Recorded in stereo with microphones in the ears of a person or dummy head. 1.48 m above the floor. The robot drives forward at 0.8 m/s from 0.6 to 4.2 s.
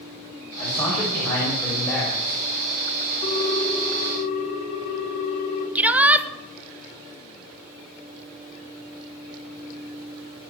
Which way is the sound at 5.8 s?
10° right (ahead or behind).